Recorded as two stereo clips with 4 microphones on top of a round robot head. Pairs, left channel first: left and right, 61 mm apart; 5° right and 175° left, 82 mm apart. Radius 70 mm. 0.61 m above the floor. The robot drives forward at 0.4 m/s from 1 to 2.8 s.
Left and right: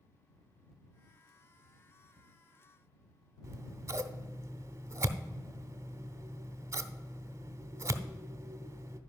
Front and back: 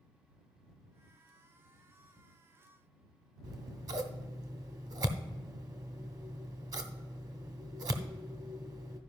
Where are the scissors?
130° right, 0.8 m.